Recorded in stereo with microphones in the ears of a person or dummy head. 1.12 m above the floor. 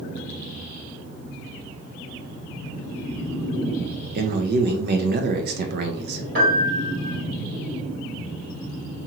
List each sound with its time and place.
4.2 s a man speaking: 55° right (ahead or behind), 0.5 m
6.3 s a piano: 50° right (ahead or behind), 1.8 m